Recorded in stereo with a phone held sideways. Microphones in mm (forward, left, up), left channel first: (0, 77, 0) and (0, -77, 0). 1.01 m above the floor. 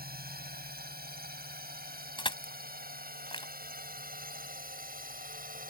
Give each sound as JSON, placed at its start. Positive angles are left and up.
{"t": 0.0, "sound": "a drone", "side_deg": -80}
{"t": 2.2, "sound": "crushing", "side_deg": 35}